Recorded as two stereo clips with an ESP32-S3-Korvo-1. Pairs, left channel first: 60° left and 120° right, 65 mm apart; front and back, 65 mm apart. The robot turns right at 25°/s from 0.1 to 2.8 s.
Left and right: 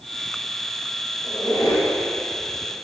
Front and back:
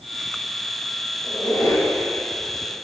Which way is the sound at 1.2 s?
20° left.